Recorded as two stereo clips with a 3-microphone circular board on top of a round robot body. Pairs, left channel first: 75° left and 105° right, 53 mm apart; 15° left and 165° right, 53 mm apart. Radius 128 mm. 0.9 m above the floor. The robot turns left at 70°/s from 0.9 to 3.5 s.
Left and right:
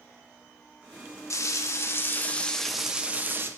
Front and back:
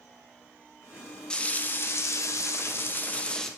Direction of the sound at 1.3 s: 90° left.